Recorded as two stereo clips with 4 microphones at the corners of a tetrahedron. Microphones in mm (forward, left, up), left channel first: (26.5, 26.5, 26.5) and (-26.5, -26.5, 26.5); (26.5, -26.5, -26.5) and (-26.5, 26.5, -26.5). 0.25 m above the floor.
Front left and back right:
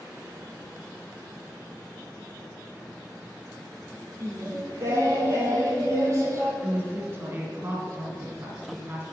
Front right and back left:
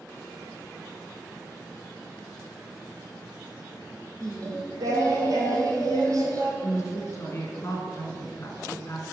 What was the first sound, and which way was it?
Singing, 175° left.